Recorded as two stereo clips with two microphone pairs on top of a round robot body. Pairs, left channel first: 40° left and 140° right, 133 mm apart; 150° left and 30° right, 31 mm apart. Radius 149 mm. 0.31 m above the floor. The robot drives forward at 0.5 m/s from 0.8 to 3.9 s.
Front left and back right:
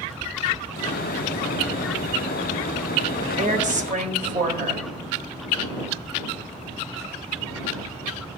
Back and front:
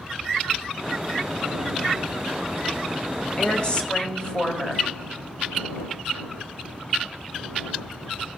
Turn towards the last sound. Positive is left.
turn(degrees=-155)